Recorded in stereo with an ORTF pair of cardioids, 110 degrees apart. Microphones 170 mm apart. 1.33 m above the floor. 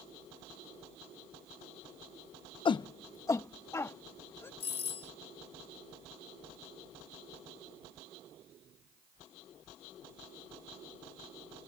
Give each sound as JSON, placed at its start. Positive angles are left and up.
{"t": 2.6, "sound": "a shout", "azimuth_deg": 30}
{"t": 4.6, "sound": "a doorbell", "azimuth_deg": 40}